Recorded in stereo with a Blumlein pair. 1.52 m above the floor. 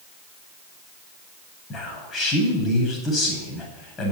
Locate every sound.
1.7 s a man speaking: 20° left, 8 m